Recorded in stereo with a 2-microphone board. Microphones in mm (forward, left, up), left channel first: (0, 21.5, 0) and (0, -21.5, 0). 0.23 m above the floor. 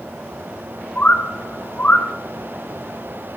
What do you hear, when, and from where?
0.9 s a bird: 45° left (ahead or behind), 2.5 m